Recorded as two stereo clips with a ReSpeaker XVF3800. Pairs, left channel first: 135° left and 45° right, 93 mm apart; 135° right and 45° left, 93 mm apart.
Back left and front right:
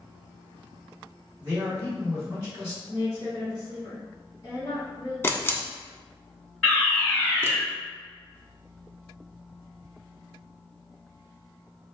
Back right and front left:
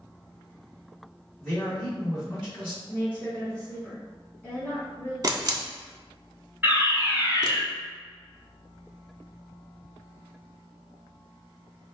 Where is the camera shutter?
80° left, 0.5 m.